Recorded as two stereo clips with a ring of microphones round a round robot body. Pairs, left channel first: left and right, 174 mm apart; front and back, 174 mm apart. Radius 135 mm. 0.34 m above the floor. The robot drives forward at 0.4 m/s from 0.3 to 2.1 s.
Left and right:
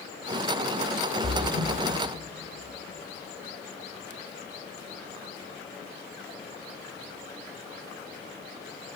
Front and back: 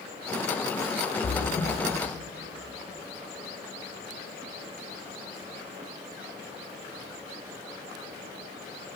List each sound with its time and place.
1.2 s a splash: 30° left, 1.2 m; by 1.7 s 35° left, 1.1 m